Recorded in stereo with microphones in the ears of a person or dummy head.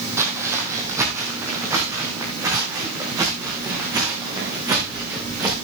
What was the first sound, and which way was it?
Footsteps, 10° right (ahead or behind).